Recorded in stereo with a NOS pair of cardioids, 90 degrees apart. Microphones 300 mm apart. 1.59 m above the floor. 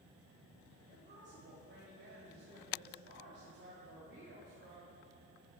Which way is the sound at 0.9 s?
35° right.